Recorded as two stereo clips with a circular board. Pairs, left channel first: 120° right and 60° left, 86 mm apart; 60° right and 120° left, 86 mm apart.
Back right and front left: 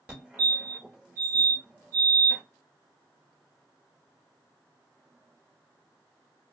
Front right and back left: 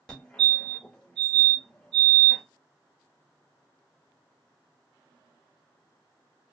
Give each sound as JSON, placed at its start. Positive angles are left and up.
{"t": 0.1, "sound": "a fire alarm", "azimuth_deg": 10, "distance_m": 1.7}